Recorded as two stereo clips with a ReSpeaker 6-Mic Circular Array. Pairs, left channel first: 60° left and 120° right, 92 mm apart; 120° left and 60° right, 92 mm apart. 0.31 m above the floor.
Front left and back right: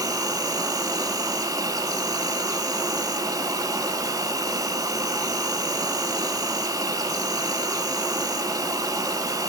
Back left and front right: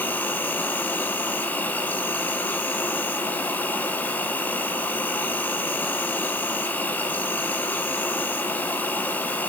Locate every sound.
0.0 s an insect: 170° right, 0.9 m